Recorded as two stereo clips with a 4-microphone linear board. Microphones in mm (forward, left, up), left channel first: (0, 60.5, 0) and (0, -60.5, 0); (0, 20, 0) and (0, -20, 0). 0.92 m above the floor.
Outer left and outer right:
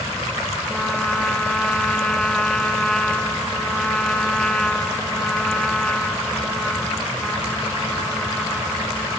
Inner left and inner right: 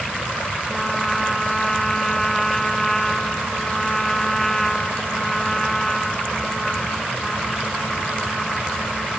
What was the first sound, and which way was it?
A trumpet, 5° left (ahead or behind).